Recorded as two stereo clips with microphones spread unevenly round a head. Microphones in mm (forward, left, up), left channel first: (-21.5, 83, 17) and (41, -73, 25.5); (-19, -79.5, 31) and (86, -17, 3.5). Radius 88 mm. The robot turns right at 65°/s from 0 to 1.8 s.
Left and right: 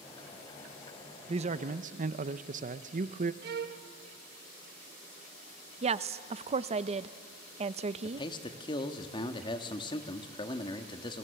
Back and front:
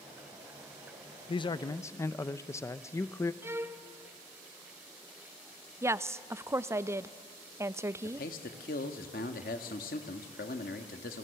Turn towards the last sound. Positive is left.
turn(degrees=175)